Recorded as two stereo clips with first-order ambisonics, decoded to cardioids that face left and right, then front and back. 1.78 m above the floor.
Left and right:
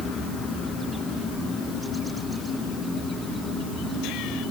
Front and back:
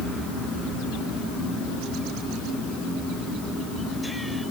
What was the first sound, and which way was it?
Only background noise.